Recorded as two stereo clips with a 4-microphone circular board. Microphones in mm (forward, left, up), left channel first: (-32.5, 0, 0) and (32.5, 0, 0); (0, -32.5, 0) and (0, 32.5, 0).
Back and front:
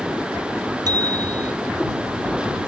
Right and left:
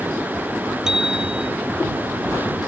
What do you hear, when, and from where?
0.9 s a bicycle bell: 10° left